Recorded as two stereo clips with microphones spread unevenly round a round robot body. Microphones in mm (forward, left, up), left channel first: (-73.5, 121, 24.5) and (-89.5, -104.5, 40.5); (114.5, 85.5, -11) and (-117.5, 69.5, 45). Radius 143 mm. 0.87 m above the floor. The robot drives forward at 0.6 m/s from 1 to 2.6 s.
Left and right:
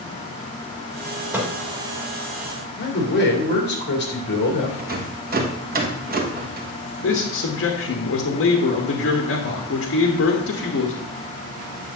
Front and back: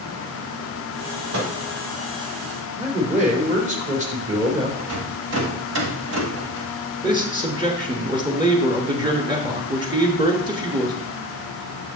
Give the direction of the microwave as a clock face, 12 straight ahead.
6 o'clock.